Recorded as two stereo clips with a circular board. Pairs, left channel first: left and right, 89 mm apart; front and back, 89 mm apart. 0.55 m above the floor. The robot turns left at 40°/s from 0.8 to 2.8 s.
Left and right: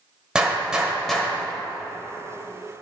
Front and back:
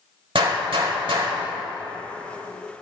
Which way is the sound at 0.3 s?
170° right.